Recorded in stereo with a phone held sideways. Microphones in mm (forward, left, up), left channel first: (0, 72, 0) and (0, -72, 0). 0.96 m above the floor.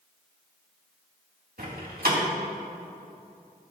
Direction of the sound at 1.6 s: 85° right.